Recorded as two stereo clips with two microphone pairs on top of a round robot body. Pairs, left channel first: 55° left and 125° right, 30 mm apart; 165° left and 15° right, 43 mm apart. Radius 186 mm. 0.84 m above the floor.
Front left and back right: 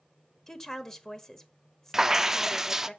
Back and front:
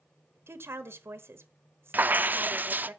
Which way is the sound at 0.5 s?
20° right.